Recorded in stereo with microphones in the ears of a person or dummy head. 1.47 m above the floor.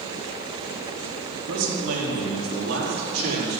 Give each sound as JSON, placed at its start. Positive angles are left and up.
{"t": 1.5, "sound": "a man speaking", "side_deg": -75, "distance_m": 4.0}